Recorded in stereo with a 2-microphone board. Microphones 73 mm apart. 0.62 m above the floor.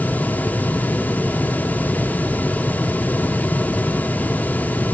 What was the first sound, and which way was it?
Only background noise.